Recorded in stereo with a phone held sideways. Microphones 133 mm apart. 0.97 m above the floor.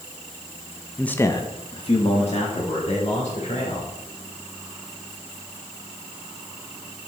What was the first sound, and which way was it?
A man speaking, centre (ahead or behind).